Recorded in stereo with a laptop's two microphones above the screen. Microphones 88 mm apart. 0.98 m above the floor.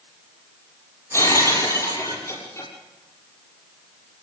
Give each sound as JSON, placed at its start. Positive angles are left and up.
{"t": 1.1, "sound": "breaking glass", "side_deg": 35, "distance_m": 6.0}